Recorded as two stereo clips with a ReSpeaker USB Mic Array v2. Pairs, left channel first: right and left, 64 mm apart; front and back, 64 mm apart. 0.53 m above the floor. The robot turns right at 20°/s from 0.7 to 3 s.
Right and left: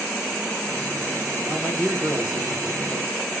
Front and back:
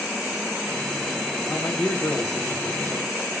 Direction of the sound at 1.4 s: Straight ahead.